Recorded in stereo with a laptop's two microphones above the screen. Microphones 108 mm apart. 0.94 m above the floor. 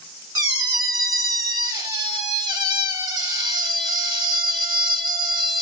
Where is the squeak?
35° right (ahead or behind), 1.0 m.